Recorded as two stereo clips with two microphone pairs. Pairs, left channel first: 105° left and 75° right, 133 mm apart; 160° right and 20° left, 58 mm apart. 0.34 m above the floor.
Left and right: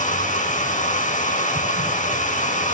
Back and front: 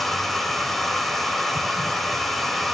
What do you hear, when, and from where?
0.0 s running water: 115° left, 3.5 m